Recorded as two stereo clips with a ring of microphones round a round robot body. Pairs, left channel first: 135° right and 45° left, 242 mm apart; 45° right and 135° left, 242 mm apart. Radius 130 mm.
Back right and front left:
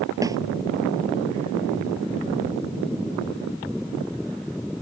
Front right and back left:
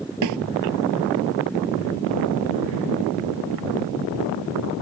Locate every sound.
0.2 s a snare drum: 120° left